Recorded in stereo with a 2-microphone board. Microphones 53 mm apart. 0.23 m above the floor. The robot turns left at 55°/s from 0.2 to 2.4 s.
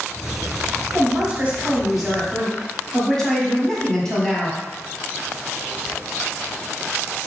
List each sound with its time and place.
0.9 s a man speaking: 115° right, 1.2 m; by 4.6 s 165° left, 1.2 m